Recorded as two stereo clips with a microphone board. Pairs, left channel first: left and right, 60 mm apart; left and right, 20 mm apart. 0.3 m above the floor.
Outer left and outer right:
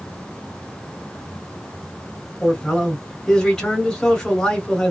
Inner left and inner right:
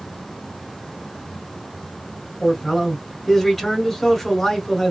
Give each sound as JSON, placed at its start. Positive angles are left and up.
{"t": 2.4, "sound": "a man speaking", "side_deg": 10, "distance_m": 1.8}